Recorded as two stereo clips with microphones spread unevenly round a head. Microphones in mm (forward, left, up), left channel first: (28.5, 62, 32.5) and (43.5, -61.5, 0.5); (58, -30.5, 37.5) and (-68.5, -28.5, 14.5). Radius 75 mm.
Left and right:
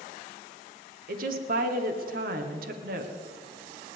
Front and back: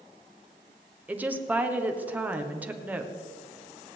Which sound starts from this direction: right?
A woman speaking, at 1.1 s.